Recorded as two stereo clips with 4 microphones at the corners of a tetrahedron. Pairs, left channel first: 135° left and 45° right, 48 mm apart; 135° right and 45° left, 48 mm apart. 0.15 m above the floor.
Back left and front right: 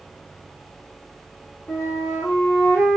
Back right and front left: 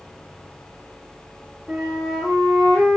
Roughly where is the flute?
Behind left.